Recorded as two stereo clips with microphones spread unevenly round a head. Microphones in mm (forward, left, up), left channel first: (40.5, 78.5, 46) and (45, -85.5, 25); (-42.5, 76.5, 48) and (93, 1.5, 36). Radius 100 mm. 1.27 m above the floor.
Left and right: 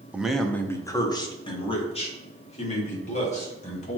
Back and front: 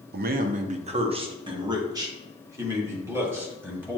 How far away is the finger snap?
No finger snap in this recording.